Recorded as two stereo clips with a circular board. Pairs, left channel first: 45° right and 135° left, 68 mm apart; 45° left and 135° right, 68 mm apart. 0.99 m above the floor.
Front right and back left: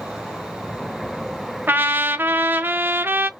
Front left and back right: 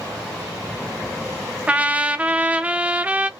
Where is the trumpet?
170° left, 0.5 m.